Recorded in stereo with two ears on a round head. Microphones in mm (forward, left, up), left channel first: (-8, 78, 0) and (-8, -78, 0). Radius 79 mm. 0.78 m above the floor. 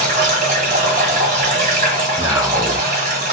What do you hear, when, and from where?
0.0 s running water: 45° right (ahead or behind), 1.0 m
2.2 s a man speaking: 20° right (ahead or behind), 0.5 m